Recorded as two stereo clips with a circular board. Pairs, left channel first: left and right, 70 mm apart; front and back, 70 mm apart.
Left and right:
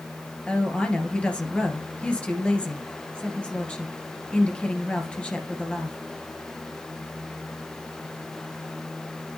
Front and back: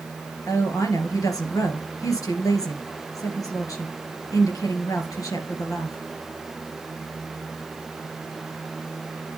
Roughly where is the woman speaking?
Ahead.